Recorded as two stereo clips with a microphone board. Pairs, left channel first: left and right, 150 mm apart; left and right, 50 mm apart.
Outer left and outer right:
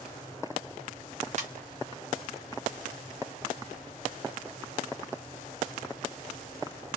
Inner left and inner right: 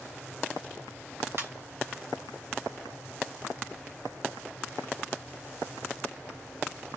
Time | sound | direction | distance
1.4 | a ringtone | 50° right (ahead or behind) | 1.1 m